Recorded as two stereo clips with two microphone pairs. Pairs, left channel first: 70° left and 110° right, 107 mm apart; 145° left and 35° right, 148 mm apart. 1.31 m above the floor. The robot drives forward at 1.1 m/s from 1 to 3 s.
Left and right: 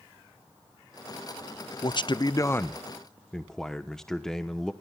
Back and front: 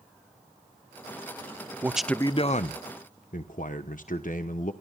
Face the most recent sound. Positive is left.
turn(degrees=160)